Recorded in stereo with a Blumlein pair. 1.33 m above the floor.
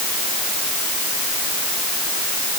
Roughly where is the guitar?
No guitar in this recording.